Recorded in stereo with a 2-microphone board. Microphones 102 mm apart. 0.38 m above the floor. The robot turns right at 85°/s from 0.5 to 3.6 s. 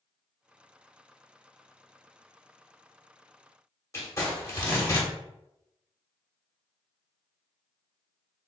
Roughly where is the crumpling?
Left.